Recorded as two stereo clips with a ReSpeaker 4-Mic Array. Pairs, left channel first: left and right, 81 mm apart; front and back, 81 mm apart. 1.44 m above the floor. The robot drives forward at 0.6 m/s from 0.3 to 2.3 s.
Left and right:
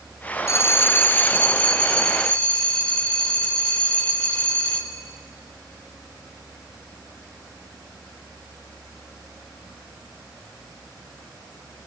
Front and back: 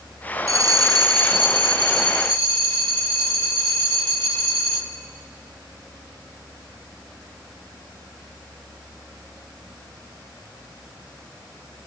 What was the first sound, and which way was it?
A bell, 140° left.